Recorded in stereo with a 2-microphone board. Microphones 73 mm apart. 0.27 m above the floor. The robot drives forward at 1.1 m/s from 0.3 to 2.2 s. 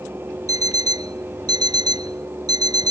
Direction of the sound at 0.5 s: 60° right (ahead or behind).